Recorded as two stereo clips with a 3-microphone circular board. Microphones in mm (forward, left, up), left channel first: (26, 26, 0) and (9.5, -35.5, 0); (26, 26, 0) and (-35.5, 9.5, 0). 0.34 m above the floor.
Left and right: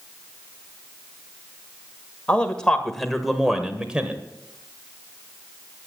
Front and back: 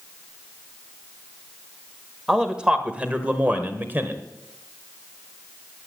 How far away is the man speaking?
About 1.6 m.